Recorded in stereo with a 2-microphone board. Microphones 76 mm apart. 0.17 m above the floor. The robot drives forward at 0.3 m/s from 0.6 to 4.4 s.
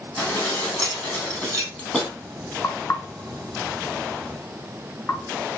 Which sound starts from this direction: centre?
Dishes clattering, at 0.2 s.